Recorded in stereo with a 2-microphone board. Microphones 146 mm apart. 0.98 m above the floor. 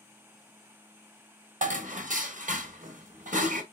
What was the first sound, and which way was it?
Dishes clattering, 65° right (ahead or behind).